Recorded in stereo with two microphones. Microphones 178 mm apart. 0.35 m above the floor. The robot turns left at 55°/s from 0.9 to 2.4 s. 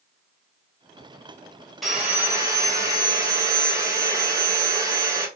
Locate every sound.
1.8 s sawing: straight ahead, 1.4 m; by 5.3 s 30° right, 1.4 m